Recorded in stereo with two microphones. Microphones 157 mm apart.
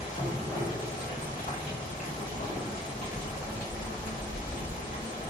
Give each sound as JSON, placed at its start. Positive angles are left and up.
{"t": 0.0, "sound": "running water", "side_deg": 55, "distance_m": 1.8}